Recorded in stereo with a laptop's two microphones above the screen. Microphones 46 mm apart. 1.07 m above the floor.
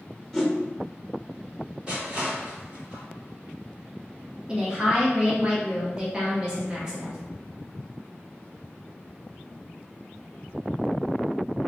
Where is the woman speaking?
20° right (ahead or behind), 0.7 m.